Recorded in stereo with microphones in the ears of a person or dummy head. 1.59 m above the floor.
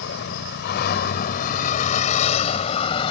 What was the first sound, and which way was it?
A vehicle, 75° left (ahead or behind).